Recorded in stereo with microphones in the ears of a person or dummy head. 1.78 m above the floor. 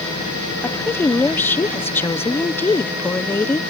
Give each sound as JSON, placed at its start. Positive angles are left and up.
{"t": 0.6, "sound": "a woman speaking", "side_deg": 10}